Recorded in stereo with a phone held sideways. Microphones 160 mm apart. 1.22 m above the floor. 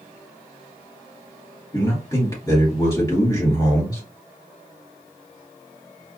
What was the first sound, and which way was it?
A man speaking, 20° left (ahead or behind).